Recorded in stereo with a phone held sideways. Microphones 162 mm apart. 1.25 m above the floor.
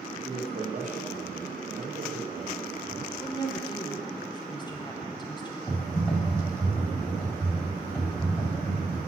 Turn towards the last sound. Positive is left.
turn(degrees=20)  # may be behind; listen again after turning